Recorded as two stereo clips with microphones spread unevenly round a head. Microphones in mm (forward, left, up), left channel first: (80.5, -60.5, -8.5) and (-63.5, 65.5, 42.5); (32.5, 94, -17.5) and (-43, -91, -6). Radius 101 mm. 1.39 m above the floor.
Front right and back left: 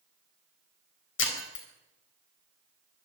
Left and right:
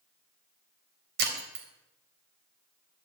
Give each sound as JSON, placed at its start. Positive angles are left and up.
{"t": 1.2, "sound": "breaking glass", "azimuth_deg": -70, "distance_m": 4.0}